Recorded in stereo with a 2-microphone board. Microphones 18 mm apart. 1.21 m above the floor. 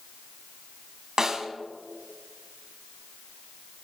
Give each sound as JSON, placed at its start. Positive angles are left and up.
{"t": 1.2, "sound": "a snare drum", "side_deg": -40, "distance_m": 1.5}